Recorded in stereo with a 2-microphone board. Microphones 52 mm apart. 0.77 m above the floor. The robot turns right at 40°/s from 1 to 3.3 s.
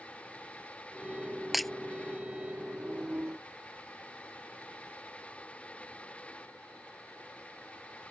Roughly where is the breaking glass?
Centre.